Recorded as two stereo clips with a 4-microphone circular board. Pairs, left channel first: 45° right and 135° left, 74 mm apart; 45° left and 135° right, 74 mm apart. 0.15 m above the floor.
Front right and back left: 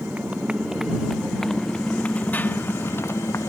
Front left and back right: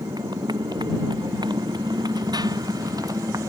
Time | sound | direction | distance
0.0 | a motorcycle | 155° right | ?